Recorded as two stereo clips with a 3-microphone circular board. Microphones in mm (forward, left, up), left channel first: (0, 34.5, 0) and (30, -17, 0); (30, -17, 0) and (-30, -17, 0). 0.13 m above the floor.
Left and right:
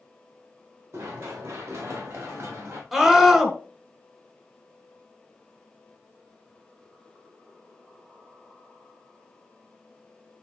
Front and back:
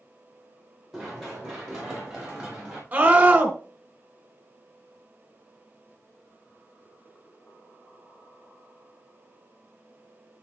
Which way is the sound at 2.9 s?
140° right.